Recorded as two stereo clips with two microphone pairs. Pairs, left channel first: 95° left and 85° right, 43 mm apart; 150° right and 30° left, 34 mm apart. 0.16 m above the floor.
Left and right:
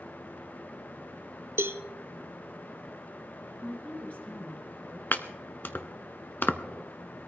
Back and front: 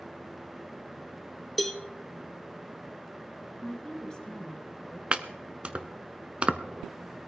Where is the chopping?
70° left, 0.7 m.